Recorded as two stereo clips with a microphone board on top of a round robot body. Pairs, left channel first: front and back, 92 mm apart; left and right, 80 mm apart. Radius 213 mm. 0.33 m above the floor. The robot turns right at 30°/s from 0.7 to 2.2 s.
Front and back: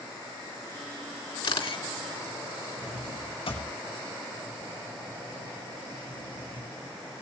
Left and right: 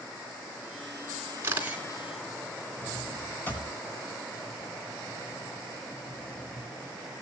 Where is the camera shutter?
30° right, 3.5 m; by 1.8 s 15° right, 3.5 m.